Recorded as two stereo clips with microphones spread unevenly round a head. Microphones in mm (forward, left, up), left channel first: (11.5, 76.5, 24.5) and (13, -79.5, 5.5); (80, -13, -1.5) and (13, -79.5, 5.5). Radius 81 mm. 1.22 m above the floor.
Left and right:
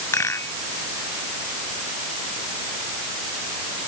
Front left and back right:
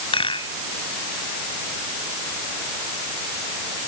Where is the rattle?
20° left.